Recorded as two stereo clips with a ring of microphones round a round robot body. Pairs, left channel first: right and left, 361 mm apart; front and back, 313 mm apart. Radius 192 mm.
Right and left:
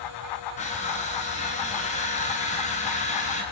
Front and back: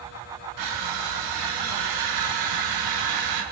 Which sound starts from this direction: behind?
Crushing, at 0.6 s.